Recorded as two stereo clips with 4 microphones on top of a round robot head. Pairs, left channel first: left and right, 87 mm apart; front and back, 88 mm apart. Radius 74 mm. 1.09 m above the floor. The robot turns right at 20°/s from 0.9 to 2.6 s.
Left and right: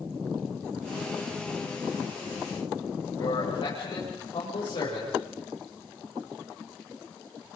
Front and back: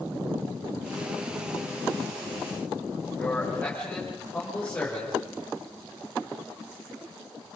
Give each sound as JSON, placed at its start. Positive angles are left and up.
{"t": 3.2, "sound": "a man speaking", "azimuth_deg": 70, "distance_m": 6.5}